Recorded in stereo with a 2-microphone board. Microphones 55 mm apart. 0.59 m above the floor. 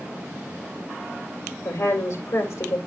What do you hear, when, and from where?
1.6 s a woman speaking: 55° left (ahead or behind), 2.5 m